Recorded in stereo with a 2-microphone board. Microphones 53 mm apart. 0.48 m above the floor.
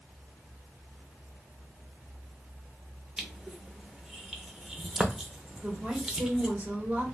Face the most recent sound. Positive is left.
turn(degrees=-20)  # may be behind; listen again after turning